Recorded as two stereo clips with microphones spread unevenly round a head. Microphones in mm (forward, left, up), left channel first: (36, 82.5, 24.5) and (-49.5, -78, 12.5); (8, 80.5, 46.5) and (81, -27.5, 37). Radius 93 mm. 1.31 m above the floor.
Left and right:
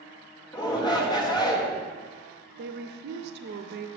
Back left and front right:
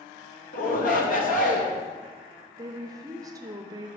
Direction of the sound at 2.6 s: 115° right.